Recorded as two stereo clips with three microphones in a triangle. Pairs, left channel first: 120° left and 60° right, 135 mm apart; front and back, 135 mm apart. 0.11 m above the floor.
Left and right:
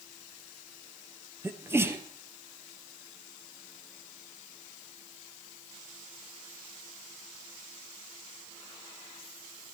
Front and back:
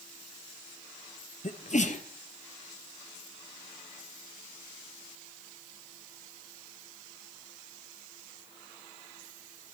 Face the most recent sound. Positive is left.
turn(degrees=10)